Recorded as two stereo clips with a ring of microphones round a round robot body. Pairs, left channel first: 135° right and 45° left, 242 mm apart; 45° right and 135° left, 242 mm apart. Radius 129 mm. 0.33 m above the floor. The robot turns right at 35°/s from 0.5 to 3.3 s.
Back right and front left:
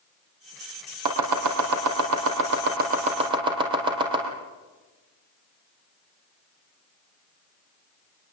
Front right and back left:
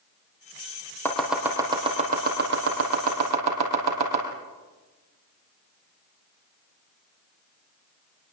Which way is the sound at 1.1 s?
40° left.